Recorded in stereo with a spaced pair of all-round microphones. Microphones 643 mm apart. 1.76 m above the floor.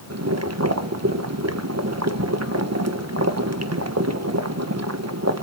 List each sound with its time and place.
0.1 s boiling: 25° right (ahead or behind), 1.3 m